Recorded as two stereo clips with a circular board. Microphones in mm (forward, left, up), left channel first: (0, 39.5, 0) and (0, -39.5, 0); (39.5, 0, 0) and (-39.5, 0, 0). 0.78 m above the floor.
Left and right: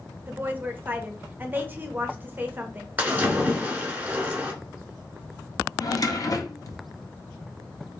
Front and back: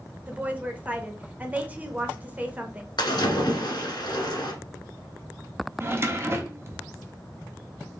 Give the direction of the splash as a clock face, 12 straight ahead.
1 o'clock.